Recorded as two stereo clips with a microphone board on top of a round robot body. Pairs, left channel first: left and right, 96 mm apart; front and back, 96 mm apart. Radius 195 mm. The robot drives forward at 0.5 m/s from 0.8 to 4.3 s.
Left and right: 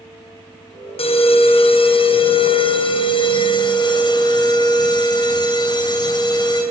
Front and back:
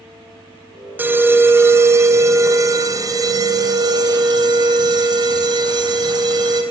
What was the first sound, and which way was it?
An alarm, 110° left.